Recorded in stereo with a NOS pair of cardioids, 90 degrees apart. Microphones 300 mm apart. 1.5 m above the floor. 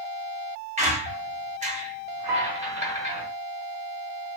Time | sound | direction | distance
0.8 | a squeak | 25° right | 1.1 m
2.3 | a piano | 60° right | 1.5 m